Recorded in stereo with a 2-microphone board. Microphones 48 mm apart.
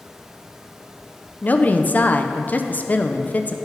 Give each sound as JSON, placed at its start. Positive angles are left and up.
{"t": 1.4, "sound": "a woman speaking", "side_deg": 40, "distance_m": 0.6}